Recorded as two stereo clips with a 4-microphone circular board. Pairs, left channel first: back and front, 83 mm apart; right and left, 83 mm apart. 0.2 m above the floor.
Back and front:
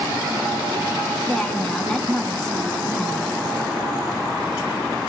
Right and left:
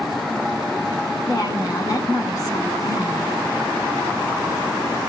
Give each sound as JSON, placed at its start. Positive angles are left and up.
{"t": 1.3, "sound": "a woman speaking", "azimuth_deg": -105, "distance_m": 2.5}